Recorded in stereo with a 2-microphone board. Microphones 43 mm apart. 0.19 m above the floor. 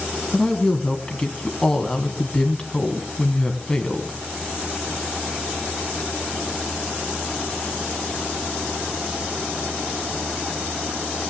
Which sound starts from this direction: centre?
A woman speaking, at 0.3 s.